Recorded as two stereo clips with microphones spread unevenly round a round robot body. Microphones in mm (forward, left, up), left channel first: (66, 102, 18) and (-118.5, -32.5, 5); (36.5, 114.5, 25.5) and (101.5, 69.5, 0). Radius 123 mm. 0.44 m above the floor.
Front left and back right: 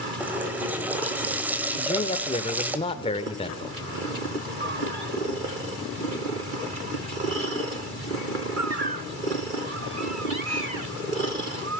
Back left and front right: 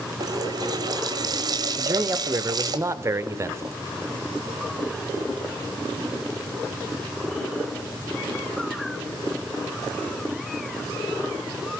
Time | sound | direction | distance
0.2 | a running tap | 60° right | 1.3 m
1.8 | a man speaking | 30° right | 1.1 m